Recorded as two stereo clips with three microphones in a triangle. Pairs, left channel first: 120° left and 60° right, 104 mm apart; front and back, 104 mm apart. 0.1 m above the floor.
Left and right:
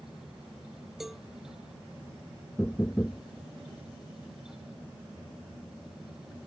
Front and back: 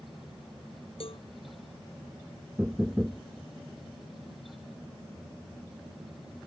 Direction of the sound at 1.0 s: 30° left.